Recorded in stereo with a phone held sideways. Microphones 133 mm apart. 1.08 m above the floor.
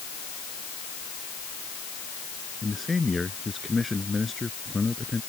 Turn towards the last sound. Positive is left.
turn(degrees=0)  # may be behind; listen again after turning